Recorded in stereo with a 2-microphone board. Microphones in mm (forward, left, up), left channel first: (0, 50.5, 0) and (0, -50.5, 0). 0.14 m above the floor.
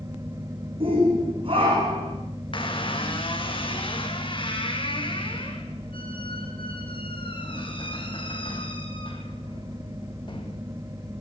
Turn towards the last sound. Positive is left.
turn(degrees=55)  # may be behind; listen again after turning